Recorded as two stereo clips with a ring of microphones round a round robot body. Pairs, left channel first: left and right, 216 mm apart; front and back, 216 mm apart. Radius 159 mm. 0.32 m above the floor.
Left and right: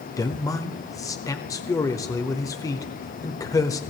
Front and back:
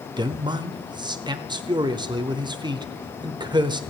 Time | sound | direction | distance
0.2 | a man speaking | 145° left | 0.9 m